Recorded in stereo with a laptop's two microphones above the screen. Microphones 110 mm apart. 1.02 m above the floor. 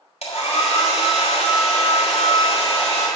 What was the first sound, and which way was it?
A hair dryer, 80° left.